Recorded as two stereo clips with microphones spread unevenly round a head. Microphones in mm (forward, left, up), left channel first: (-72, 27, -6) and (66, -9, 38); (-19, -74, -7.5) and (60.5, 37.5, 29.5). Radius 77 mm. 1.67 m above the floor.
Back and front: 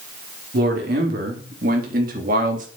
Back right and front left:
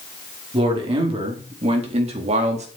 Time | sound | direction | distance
0.5 | a man speaking | 5° left | 4.5 m